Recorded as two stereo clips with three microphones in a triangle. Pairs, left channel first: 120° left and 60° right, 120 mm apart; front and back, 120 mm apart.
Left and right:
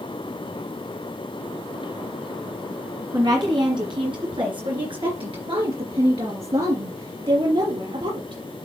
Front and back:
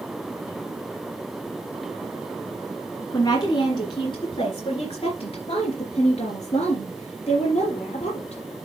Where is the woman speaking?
35° right, 1.8 m; by 8.4 s 25° right, 4.5 m.